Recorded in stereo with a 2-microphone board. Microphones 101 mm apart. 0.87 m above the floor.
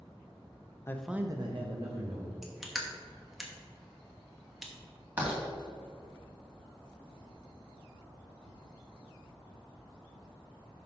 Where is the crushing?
5° right (ahead or behind), 1.1 m.